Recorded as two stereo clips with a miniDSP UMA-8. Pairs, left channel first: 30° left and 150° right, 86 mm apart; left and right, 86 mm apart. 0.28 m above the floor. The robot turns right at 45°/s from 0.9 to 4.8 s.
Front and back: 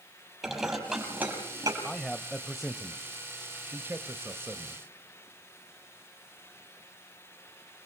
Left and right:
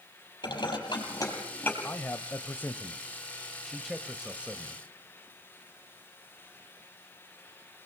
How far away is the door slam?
I don't hear a door slam.